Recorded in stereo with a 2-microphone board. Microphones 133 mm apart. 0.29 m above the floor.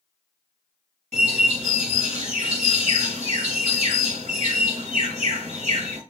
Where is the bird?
60° right (ahead or behind), 1.1 m.